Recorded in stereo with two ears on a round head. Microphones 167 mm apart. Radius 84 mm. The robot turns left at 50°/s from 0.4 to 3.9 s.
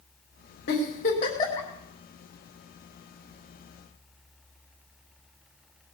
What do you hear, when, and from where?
0.7 s a giggle: 60° left (ahead or behind), 4.5 m; by 1.7 s 10° left (ahead or behind), 4.5 m